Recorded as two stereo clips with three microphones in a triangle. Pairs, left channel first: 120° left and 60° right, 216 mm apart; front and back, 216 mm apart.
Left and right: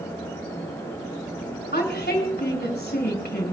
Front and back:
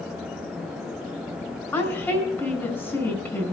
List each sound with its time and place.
1.7 s a woman speaking: 80° left, 4 m